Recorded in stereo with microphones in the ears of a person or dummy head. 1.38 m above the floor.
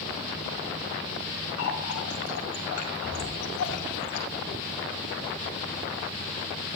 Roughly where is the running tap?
Left.